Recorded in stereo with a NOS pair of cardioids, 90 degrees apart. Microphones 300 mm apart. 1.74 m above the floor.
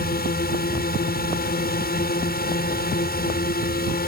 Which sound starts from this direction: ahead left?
A drone, at 0.0 s.